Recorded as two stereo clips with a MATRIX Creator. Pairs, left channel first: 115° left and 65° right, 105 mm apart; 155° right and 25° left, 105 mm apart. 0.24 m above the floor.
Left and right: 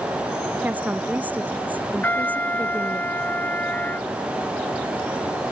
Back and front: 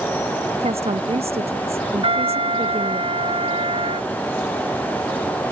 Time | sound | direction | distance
0.6 | a woman speaking | 10° left | ?
2.0 | a trumpet | 40° left | ?